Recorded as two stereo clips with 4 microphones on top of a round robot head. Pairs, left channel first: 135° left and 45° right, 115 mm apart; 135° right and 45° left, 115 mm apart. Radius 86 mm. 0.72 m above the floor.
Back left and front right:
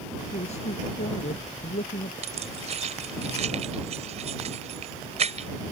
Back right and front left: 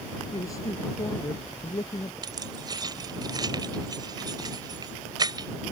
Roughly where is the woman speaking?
Behind.